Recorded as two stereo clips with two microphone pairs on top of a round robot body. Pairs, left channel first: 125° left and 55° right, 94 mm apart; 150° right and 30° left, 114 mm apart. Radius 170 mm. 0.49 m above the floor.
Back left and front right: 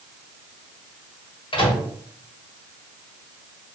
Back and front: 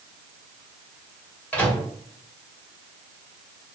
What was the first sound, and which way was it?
A microwave, 135° left.